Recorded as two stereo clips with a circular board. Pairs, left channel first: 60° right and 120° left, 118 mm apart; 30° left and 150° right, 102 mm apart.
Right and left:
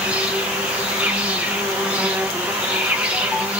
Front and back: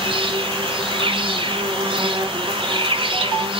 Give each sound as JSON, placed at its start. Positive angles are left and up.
{"t": 0.0, "sound": "an insect", "azimuth_deg": -160, "distance_m": 1.0}